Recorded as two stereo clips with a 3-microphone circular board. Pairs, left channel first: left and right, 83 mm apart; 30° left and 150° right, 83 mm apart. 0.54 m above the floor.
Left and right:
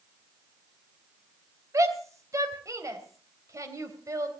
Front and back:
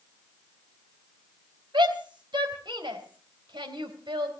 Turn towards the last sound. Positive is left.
turn(degrees=-140)